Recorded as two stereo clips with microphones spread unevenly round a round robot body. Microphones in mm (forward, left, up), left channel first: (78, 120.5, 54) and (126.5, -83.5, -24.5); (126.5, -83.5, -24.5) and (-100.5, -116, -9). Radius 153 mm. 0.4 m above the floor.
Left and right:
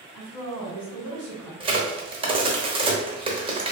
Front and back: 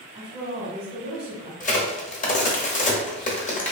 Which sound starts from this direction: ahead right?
A crack, at 1.6 s.